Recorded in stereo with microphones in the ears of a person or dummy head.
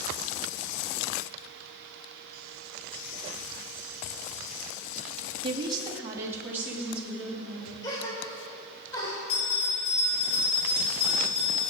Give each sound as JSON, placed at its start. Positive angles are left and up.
{"t": 5.4, "sound": "a woman speaking", "side_deg": -35, "distance_m": 2.5}
{"t": 7.8, "sound": "a gasp", "side_deg": 20, "distance_m": 4.5}
{"t": 9.3, "sound": "a bell", "side_deg": 35, "distance_m": 3.5}